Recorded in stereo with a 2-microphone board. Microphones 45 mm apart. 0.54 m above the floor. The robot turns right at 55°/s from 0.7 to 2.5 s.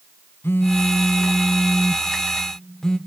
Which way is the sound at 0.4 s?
65° left.